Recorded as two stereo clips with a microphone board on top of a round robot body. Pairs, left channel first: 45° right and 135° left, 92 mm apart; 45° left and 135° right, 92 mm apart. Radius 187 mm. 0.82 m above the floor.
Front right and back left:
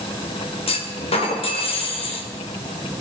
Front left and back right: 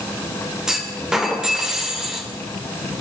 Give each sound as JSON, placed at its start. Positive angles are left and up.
{"t": 0.7, "sound": "a clunk", "azimuth_deg": -50, "distance_m": 2.0}